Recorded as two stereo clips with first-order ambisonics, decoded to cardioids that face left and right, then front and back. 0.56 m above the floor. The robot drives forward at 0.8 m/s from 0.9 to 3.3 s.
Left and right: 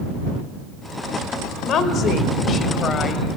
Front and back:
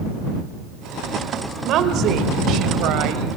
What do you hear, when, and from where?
1.6 s a woman speaking: 135° left, 2.5 m; by 3.4 s 155° left, 3.5 m